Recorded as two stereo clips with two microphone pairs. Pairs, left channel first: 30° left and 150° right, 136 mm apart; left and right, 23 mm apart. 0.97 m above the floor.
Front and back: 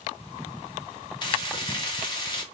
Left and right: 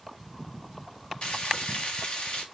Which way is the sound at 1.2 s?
80° left.